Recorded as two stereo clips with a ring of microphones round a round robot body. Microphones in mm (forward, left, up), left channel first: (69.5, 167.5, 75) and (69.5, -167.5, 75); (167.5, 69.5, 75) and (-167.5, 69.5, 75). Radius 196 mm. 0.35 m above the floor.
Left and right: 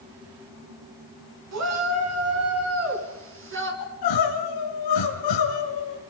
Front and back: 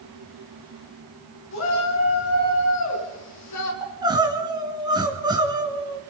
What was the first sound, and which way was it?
A shout, 55° right.